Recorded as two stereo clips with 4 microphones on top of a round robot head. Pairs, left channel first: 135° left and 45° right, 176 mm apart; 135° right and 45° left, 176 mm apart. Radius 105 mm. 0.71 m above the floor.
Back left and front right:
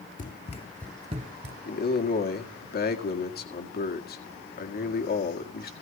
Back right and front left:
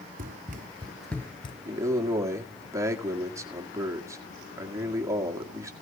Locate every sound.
0.2 s running footsteps: 90° left, 1.3 m; by 1.6 s 75° right, 1.1 m
1.6 s a man speaking: 115° left, 1.9 m